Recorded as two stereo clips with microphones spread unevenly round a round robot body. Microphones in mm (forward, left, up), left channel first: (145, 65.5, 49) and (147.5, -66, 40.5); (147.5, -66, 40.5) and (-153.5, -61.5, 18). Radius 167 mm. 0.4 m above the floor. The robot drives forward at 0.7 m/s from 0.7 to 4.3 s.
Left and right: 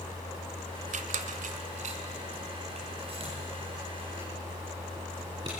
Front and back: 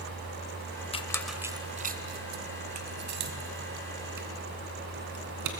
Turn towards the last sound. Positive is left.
turn(degrees=-160)